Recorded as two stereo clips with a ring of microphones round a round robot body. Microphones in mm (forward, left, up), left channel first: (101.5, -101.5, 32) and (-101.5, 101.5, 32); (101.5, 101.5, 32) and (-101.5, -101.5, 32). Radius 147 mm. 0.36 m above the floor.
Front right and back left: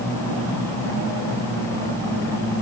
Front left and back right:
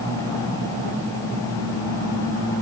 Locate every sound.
Only background noise.